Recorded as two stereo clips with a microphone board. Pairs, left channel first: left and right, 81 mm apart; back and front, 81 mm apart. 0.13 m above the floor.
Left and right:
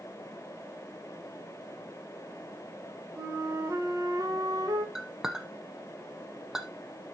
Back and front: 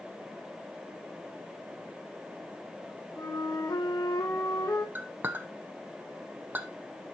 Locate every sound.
3.2 s a flute: 135° right, 2.5 m
5.0 s a clink: 15° right, 0.9 m